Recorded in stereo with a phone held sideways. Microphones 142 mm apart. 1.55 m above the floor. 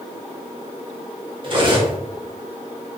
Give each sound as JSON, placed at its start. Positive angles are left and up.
{"t": 1.4, "sound": "cutlery clinking", "side_deg": -35, "distance_m": 0.8}